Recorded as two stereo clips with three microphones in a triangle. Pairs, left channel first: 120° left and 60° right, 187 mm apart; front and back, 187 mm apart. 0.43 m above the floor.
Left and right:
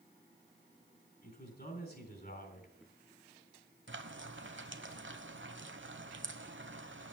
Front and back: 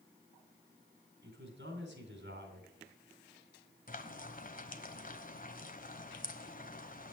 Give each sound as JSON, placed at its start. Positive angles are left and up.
{"t": 1.2, "sound": "a man speaking", "azimuth_deg": 155, "distance_m": 3.0}
{"t": 3.9, "sound": "frying", "azimuth_deg": -45, "distance_m": 1.1}